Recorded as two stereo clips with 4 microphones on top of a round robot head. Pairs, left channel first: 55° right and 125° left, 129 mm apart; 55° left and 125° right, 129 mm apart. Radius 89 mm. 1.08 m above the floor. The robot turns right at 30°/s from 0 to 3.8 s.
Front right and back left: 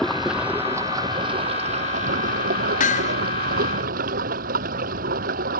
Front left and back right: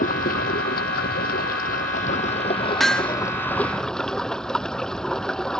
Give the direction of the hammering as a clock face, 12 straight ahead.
1 o'clock.